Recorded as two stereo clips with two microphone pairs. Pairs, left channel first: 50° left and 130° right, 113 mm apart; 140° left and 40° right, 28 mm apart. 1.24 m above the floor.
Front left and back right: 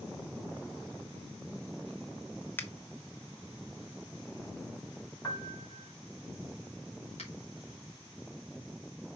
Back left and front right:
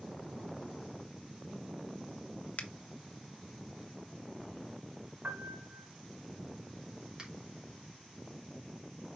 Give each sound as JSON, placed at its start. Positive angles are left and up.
{"t": 2.6, "sound": "a finger snap", "azimuth_deg": 120, "distance_m": 1.0}
{"t": 5.2, "sound": "a piano", "azimuth_deg": -10, "distance_m": 2.5}
{"t": 7.2, "sound": "a finger snap", "azimuth_deg": 30, "distance_m": 3.0}